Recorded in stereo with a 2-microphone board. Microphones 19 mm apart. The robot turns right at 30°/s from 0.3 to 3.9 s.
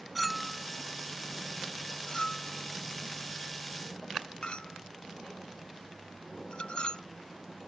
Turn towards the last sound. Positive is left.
turn(degrees=60)  # may be behind; listen again after turning